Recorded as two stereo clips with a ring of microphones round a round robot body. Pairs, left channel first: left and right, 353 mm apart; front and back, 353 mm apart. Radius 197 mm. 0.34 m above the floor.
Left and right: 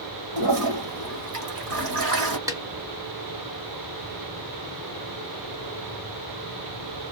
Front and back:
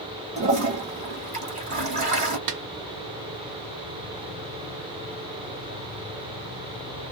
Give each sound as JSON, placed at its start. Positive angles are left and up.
{"t": 0.4, "sound": "a toilet flushing", "azimuth_deg": -110, "distance_m": 1.6}
{"t": 2.5, "sound": "a snare drum", "azimuth_deg": -170, "distance_m": 0.7}